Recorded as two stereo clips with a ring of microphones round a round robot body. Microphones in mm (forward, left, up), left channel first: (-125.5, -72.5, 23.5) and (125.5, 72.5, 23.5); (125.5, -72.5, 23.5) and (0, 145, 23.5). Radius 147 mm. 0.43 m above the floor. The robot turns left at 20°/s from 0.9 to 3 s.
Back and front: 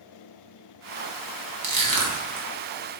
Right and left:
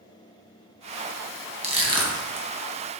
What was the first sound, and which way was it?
Crushing, 55° left.